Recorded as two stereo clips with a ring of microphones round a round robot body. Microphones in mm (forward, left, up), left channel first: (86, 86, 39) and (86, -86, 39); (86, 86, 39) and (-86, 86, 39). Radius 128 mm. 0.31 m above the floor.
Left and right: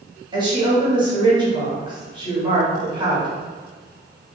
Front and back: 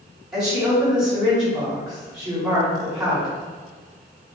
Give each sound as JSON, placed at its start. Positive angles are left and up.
{"t": 0.3, "sound": "a woman speaking", "azimuth_deg": -100, "distance_m": 1.6}